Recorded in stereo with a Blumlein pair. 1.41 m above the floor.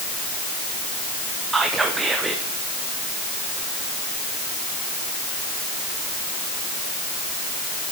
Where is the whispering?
10° right, 0.7 m.